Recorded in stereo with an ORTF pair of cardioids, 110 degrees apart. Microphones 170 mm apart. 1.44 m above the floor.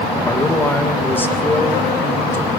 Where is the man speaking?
10° left, 1.6 m.